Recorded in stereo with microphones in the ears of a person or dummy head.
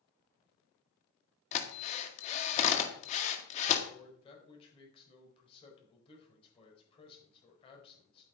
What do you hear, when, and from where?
1.5 s a drill: 40° left (ahead or behind), 1.9 m
3.9 s a man speaking: 30° left (ahead or behind), 4.5 m